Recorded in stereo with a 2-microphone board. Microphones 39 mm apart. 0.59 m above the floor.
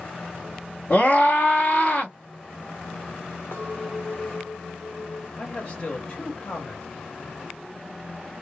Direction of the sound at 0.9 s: 40° left (ahead or behind).